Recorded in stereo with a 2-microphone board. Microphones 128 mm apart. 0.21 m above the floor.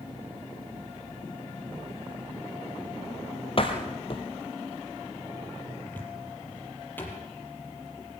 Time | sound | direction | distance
3.6 | a door slam | 45° left (ahead or behind) | 3.5 m
5.9 | a cupboard door | 15° left (ahead or behind) | 5.5 m